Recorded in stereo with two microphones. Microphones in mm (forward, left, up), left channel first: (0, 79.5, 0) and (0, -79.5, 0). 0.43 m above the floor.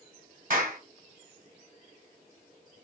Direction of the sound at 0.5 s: 65° right (ahead or behind).